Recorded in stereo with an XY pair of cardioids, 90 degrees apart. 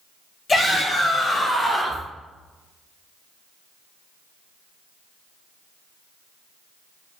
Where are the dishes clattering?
I don't hear dishes clattering.